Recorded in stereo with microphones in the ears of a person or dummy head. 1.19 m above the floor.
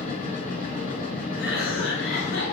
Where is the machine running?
40° left (ahead or behind), 2.5 m.